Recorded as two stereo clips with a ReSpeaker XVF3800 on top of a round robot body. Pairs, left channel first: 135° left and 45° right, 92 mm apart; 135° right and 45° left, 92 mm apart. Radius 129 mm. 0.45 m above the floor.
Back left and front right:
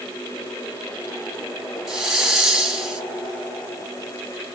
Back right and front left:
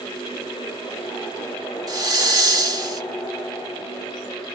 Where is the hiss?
40° left, 1.6 m.